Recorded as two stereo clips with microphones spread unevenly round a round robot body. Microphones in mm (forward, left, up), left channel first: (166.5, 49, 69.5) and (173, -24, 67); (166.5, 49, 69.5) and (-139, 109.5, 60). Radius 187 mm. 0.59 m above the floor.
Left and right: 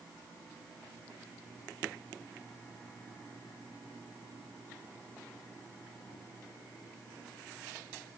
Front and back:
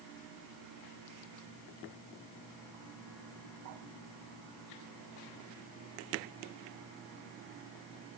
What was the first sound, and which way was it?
Only background noise.